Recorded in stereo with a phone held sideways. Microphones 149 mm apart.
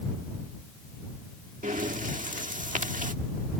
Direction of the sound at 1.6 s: 60° right (ahead or behind).